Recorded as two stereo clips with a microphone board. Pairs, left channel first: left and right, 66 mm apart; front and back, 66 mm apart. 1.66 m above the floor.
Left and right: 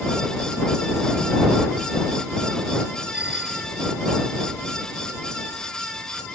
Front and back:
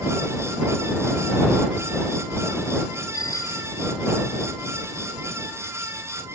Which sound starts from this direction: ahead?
A bicycle bell, at 3.1 s.